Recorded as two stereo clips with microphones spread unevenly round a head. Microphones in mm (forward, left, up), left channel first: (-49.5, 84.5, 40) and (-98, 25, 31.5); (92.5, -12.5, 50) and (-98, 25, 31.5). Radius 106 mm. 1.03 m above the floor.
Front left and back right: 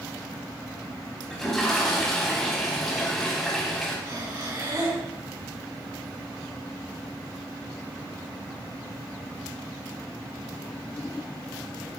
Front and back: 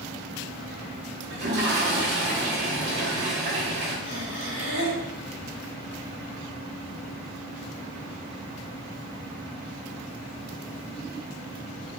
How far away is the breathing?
About 3.5 m.